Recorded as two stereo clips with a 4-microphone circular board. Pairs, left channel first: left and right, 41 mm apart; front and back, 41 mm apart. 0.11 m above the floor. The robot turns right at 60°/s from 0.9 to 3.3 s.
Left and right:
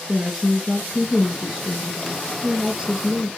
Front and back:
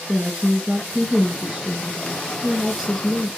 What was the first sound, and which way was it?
A woman speaking, 140° left.